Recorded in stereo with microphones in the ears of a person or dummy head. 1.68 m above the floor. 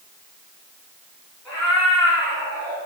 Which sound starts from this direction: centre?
A cat meowing, at 1.4 s.